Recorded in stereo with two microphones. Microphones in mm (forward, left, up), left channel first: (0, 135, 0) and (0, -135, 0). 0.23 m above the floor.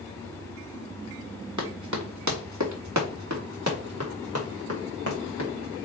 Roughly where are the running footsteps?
Right.